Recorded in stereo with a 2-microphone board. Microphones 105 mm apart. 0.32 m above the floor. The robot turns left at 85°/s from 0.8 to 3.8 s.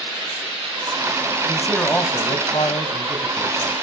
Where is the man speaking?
165° right, 2.0 m; by 3.7 s 5° left, 2.0 m.